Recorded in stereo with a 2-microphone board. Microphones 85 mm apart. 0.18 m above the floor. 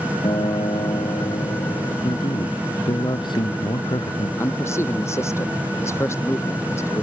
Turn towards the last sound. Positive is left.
turn(degrees=30)  # may be behind; listen again after turning